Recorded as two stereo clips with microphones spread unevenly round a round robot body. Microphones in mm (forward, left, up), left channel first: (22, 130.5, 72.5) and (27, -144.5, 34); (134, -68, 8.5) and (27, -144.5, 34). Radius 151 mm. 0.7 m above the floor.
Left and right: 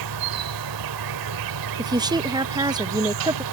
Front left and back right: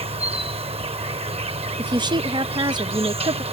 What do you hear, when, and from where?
0.0 s an insect: 110° right
1.8 s a woman speaking: 115° right